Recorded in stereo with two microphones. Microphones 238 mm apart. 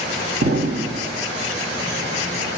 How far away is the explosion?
About 0.8 m.